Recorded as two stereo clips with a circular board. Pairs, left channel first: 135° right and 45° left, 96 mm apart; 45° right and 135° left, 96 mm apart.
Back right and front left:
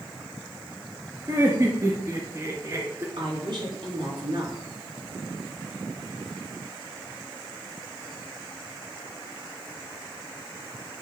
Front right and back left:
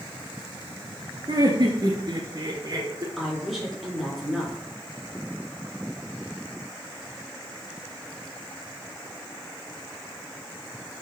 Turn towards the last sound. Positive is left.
turn(degrees=45)